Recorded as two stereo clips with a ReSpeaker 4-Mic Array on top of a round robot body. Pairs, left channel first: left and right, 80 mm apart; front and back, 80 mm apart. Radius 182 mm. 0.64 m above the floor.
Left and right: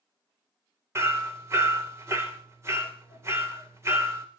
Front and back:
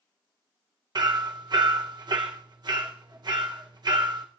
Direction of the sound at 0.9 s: 145° right.